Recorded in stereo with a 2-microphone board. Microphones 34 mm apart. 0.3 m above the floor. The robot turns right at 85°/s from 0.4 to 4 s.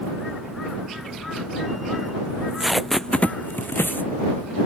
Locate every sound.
2.3 s tape being pulled: 45° right (ahead or behind); by 4.1 s 80° left